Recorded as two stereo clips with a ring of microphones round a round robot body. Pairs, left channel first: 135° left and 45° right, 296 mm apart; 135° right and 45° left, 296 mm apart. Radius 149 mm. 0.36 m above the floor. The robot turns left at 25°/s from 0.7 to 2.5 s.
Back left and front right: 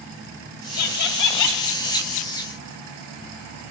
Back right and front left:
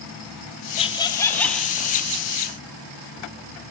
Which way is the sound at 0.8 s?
155° left.